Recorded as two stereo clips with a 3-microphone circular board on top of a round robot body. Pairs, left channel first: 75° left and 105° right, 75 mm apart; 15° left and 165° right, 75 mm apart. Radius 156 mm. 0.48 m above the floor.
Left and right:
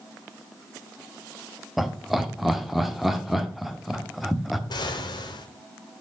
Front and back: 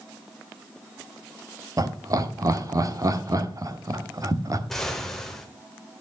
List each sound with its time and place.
1.8 s laughter: 165° left, 1.4 m
4.7 s an explosion: 100° left, 1.3 m